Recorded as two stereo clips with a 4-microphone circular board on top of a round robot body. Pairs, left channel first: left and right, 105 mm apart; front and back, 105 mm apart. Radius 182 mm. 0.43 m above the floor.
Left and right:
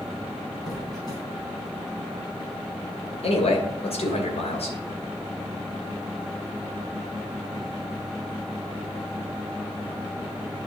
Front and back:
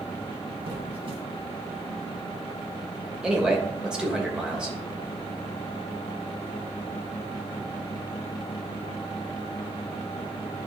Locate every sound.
0.7 s a squeak: 140° left, 3 m
3.2 s a man speaking: 100° left, 3 m